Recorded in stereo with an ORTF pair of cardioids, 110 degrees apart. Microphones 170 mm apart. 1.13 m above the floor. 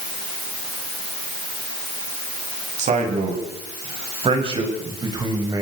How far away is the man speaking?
About 9 m.